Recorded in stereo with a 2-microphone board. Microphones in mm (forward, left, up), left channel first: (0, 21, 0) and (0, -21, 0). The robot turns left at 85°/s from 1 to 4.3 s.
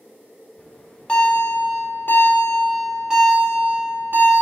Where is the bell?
160° left, 1.4 m; by 4.4 s 120° right, 1.4 m.